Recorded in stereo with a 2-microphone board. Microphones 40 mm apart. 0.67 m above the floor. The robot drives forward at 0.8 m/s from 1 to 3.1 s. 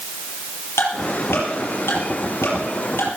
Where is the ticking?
80° left, 6 m.